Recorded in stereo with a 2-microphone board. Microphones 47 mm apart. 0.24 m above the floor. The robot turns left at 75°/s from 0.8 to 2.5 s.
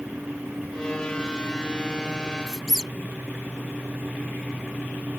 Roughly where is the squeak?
Centre.